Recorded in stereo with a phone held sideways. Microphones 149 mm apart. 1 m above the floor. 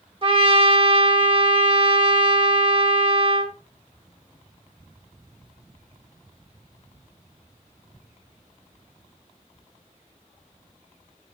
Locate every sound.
0.2 s a trumpet: 40° right (ahead or behind), 1.0 m